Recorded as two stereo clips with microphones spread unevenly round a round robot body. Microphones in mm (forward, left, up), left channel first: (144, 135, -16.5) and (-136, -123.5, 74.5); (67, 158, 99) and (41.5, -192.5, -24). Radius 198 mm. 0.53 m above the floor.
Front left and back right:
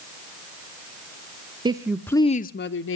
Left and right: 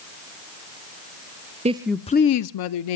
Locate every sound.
1.6 s a woman speaking: 50° right, 0.9 m; by 3.0 s 85° left, 1.0 m